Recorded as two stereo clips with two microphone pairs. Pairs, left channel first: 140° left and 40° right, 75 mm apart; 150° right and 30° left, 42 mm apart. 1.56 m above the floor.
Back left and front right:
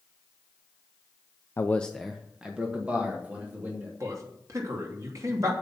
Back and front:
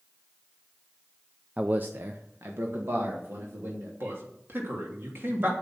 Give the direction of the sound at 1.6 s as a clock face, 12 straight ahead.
9 o'clock.